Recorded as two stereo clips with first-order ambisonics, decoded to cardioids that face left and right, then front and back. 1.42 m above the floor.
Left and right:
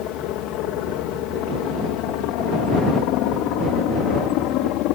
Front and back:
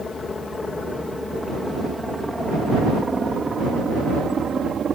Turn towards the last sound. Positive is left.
turn(degrees=115)